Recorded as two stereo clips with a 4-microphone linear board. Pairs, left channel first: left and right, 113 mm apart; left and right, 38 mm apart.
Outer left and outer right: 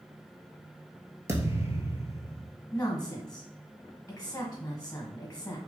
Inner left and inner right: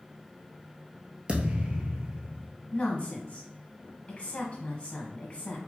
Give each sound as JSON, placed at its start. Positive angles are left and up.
{"t": 1.3, "sound": "a thud", "side_deg": -25, "distance_m": 1.0}
{"t": 2.7, "sound": "a woman speaking", "side_deg": 15, "distance_m": 1.2}